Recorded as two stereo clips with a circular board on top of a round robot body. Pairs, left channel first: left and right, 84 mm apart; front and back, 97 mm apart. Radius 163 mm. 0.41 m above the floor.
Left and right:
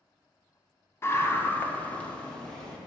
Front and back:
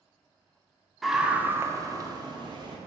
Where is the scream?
90° left, 1.0 m; by 2.8 s 170° left, 1.5 m.